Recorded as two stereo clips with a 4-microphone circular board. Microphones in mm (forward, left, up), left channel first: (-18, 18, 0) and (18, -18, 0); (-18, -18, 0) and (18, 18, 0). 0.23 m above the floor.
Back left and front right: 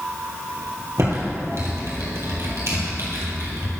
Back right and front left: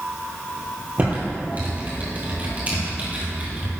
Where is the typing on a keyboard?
15° right, 2.5 m.